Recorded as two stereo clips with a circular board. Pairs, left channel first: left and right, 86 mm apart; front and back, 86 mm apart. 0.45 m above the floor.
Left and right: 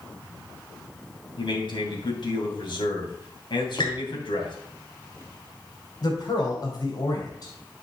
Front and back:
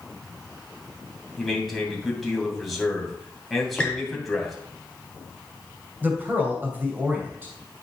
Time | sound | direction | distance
1.4 | a man speaking | 90° left | 2.5 m
3.8 | a squeak | 80° left | 2.5 m
6.0 | a man speaking | 115° left | 2.5 m